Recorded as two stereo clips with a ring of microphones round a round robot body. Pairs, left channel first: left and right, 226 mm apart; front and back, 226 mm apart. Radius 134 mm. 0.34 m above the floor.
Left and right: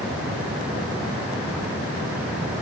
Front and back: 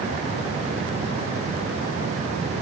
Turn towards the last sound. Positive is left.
No sound to turn to.